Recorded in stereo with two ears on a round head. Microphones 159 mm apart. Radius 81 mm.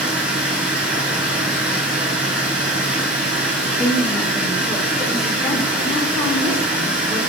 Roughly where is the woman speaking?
Centre.